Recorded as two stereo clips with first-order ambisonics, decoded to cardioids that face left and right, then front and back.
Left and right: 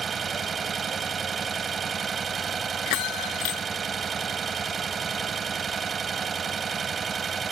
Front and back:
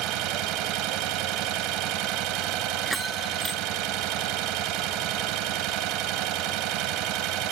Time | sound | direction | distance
0.0 | an engine running | 160° right | ?
2.9 | a bell | 90° left | ?